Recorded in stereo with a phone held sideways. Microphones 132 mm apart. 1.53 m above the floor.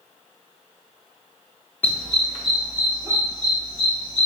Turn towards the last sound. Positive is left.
turn(degrees=-50)  # may be behind; listen again after turning